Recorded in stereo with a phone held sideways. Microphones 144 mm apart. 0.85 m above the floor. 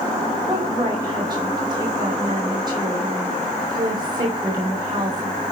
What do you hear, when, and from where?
0.5 s a woman speaking: 30° right (ahead or behind), 5 m